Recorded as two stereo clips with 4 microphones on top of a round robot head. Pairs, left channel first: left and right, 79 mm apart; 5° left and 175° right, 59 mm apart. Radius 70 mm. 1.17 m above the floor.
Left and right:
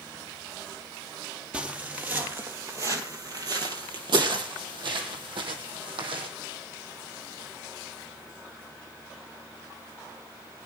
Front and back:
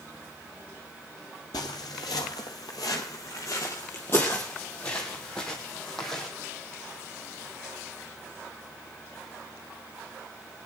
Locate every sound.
1.5 s footsteps: 20° right, 2.0 m; by 6.3 s 85° right, 3 m